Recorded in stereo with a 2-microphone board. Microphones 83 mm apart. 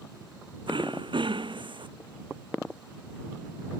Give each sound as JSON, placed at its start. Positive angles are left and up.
{"t": 0.7, "sound": "throat clearing", "side_deg": -80}